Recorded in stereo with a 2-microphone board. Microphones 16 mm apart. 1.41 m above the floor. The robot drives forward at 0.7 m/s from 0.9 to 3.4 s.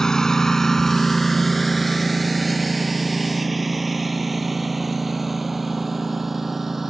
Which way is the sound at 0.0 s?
50° left (ahead or behind).